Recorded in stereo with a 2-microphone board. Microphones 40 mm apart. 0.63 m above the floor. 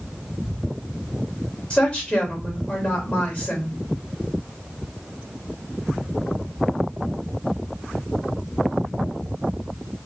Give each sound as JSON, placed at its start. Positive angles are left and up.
{"t": 1.7, "sound": "a woman speaking", "side_deg": 25, "distance_m": 2.0}